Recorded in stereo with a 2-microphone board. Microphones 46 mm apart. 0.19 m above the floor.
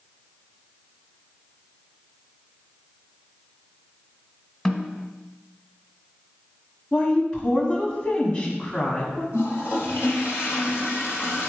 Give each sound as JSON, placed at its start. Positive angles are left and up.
{"t": 4.7, "sound": "a snare drum", "side_deg": 10, "distance_m": 1.4}
{"t": 6.9, "sound": "a woman speaking", "side_deg": 20, "distance_m": 1.4}
{"t": 9.3, "sound": "a toilet flushing", "side_deg": 60, "distance_m": 3.0}